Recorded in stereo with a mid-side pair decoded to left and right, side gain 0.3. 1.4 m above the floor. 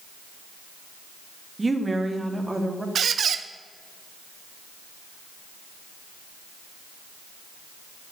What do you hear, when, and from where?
1.6 s a woman speaking: 30° right, 2 m; by 2.9 s 25° right, 3.5 m
3.0 s a squeak: 70° right, 0.8 m